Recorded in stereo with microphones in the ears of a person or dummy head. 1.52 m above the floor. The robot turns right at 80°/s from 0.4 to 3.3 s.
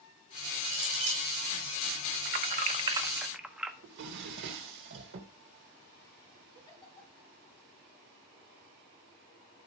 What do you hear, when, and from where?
0.7 s a clink: 115° right, 5.5 m; by 1.3 s 65° right, 5.5 m
2.2 s keys jangling: 35° right (ahead or behind), 0.8 m; by 3.7 s 5° right (ahead or behind), 0.8 m
3.8 s a drawer: 50° right (ahead or behind), 1.0 m
6.5 s a giggle: 30° left (ahead or behind), 3.5 m